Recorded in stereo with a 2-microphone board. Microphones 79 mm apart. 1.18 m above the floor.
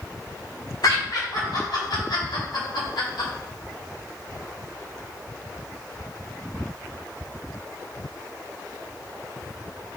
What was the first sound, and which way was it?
Laughter, 60° left (ahead or behind).